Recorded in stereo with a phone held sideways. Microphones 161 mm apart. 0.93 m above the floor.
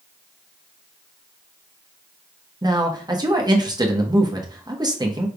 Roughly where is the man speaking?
Right.